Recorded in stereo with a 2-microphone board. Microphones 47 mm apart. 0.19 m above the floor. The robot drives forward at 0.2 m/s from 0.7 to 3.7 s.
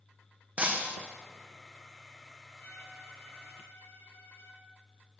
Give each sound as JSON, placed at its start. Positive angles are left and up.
{"t": 0.6, "sound": "breaking glass", "side_deg": -35, "distance_m": 2.0}
{"t": 2.6, "sound": "a violin", "side_deg": 45, "distance_m": 4.5}